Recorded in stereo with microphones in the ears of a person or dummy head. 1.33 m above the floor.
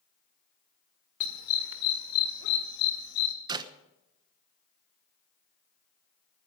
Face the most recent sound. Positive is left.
turn(degrees=-20)  # may be behind; listen again after turning